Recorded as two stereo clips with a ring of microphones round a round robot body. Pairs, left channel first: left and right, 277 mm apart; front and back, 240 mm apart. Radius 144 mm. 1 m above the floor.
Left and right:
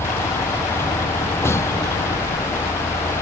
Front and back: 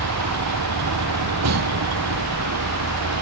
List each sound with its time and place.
0.0 s a vehicle: 170° left